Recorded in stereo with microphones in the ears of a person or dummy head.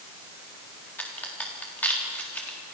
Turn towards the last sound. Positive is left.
turn(degrees=5)  # may be behind; listen again after turning